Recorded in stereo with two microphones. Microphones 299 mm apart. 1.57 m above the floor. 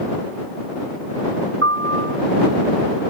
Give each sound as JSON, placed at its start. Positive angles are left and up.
{"t": 1.6, "sound": "a piano", "side_deg": -45}